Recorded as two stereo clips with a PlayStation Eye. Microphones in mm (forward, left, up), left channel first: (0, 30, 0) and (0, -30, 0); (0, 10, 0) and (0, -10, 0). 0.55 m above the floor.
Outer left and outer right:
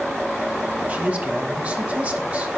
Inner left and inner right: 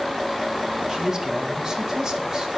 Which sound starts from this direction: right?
A man speaking, at 0.9 s.